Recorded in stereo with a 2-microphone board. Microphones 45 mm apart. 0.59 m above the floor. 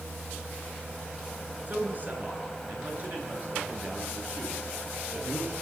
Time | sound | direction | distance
1.7 | a man speaking | 40° right (ahead or behind) | 7.5 m